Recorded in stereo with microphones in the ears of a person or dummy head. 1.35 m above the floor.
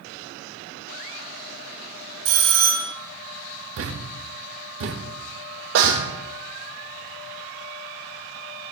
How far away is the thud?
About 1.2 m.